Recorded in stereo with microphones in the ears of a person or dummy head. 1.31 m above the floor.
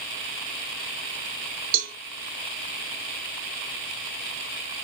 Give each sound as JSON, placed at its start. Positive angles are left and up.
{"t": 1.7, "sound": "a cowbell", "side_deg": -65, "distance_m": 0.8}